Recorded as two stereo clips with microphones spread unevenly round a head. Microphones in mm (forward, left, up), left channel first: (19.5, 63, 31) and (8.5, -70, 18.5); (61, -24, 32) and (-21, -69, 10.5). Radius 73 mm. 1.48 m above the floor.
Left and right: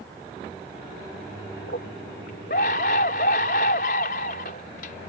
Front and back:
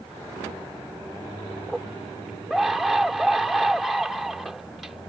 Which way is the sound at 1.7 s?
120° left.